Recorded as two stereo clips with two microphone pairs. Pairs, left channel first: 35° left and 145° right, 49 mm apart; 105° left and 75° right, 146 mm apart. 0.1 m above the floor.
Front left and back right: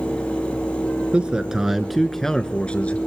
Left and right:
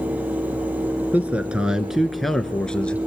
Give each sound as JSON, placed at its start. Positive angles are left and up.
{"t": 1.1, "sound": "a man speaking", "azimuth_deg": -140, "distance_m": 1.1}